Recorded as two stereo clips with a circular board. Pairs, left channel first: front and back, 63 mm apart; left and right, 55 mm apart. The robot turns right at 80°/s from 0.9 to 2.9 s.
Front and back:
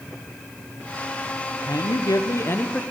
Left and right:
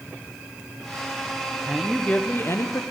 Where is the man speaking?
15° right, 0.7 m; by 2.8 s 75° left, 0.7 m.